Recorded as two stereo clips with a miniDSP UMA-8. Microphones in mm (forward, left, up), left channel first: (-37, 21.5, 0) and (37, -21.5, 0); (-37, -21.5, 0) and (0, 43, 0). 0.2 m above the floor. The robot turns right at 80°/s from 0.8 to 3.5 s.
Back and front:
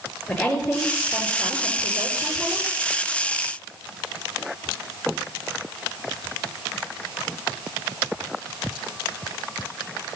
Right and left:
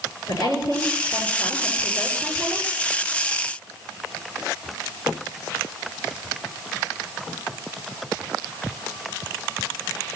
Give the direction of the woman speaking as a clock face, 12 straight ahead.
4 o'clock.